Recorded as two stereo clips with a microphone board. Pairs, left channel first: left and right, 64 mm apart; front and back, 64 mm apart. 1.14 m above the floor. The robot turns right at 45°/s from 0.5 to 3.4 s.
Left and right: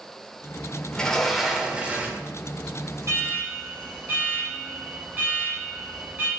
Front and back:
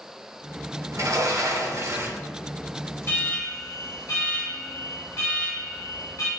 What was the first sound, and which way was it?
A sliding door, 160° left.